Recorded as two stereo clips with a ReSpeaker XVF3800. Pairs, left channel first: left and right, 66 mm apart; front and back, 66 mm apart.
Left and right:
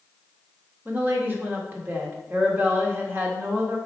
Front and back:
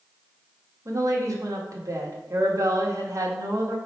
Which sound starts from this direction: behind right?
A woman speaking, at 0.8 s.